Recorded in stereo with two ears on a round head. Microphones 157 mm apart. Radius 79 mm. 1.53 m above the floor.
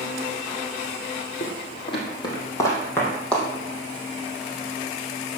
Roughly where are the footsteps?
Left.